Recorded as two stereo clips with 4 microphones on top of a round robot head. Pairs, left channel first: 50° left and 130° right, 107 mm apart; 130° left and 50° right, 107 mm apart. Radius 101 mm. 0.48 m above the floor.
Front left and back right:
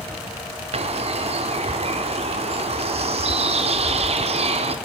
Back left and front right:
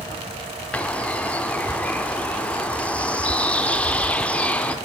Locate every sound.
0.7 s a bird: 150° right, 0.6 m